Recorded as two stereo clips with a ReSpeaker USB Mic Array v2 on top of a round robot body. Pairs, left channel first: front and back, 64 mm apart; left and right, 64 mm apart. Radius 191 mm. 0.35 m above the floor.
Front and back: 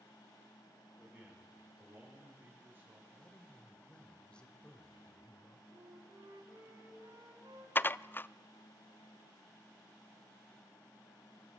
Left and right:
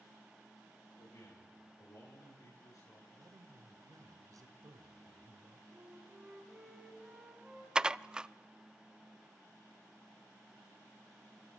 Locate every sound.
1.0 s a man speaking: 105° left, 9.5 m; by 3.0 s 120° left, 7.5 m
3.1 s a man speaking: 75° right, 2 m
5.7 s a flute: 165° right, 2.5 m
7.8 s dishes clattering: 25° right, 0.6 m